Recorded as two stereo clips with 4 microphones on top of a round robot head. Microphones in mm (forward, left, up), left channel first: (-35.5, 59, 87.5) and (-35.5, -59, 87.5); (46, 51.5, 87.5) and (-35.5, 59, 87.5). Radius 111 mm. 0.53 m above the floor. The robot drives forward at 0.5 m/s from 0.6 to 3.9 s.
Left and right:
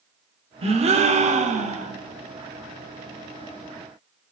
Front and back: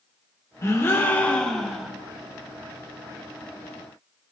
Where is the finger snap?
I don't hear a finger snap.